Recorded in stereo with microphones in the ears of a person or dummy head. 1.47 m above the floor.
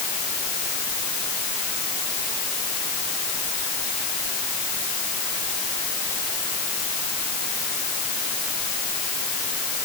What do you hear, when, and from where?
Only background noise.